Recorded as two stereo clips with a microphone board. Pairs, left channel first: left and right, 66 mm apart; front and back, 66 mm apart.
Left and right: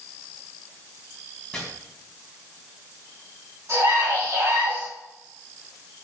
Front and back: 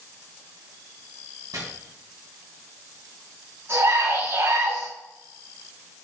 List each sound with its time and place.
1.5 s chopping: 170° left, 3.5 m
3.7 s a scream: 150° right, 5 m